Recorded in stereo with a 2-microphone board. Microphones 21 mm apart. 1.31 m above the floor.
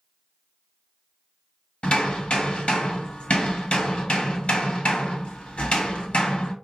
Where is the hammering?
70° left (ahead or behind), 1.5 m.